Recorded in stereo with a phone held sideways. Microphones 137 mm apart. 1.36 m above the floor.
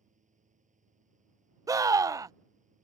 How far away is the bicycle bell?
No bicycle bell in this recording.